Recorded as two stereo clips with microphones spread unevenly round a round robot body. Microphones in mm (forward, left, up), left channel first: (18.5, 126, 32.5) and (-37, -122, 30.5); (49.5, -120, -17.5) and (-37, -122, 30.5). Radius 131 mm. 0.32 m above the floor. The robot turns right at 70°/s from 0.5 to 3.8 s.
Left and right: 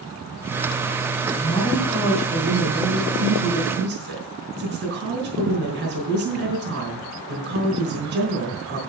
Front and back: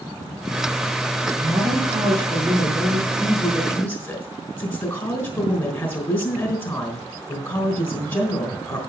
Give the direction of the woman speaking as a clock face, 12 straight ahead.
8 o'clock.